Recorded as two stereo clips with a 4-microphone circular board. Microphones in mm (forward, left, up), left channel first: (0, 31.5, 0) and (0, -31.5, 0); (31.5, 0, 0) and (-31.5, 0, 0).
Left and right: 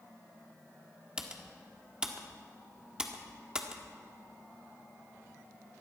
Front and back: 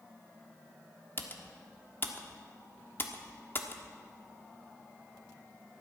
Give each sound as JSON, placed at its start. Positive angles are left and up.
{"t": 1.2, "sound": "typing on a keyboard", "azimuth_deg": -20, "distance_m": 1.3}